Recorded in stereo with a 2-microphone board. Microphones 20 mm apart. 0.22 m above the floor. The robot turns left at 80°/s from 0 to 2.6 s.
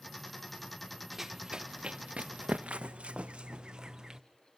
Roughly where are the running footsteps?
Centre.